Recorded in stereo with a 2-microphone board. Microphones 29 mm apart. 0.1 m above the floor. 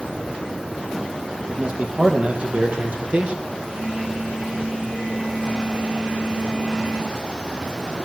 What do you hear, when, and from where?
1.5 s a man speaking: 45° right (ahead or behind), 4.5 m; by 3.4 s 50° right (ahead or behind), 3 m
3.7 s a phone buzzing: 70° right (ahead or behind), 8.5 m